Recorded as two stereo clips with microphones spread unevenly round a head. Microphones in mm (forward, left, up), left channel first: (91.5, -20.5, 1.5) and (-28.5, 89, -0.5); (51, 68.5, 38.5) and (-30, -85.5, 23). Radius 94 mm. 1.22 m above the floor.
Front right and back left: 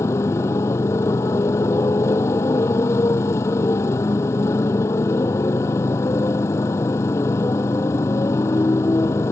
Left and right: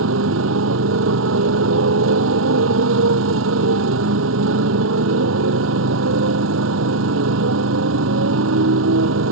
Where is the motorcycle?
120° right.